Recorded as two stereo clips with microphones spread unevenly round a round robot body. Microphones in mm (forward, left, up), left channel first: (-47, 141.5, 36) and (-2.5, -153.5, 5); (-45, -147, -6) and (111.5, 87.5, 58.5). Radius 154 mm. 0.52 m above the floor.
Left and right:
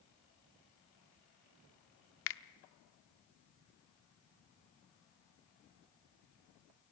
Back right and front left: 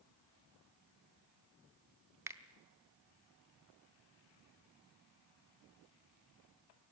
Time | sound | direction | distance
2.3 | a finger snap | 145° left | 0.7 m